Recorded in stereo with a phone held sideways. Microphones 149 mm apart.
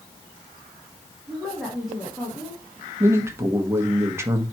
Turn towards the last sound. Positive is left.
turn(degrees=-15)  # may be behind; listen again after turning